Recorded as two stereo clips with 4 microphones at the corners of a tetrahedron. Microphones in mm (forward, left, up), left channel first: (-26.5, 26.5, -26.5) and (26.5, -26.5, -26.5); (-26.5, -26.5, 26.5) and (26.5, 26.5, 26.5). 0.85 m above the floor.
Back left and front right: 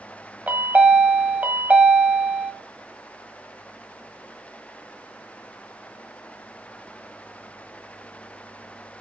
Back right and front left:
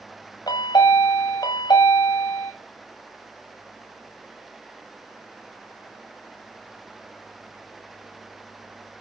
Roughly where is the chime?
Behind right.